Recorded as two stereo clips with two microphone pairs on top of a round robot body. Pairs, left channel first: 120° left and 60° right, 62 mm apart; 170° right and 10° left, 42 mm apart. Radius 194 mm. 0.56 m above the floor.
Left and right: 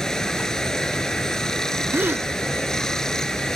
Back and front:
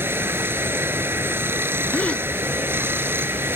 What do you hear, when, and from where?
0.0 s running water: 35° left
1.9 s a gasp: 120° right